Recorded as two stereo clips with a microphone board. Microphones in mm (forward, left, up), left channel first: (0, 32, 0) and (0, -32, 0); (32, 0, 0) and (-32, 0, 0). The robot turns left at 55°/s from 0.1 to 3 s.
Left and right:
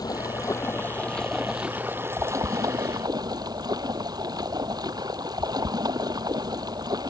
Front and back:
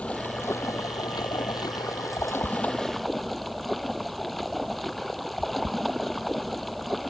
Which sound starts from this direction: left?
Running water, at 0.0 s.